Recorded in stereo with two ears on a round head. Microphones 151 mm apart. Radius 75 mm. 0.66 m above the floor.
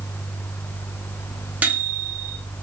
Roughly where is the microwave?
Centre.